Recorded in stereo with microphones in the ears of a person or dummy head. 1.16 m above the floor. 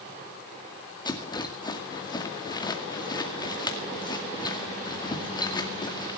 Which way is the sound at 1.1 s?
20° left (ahead or behind).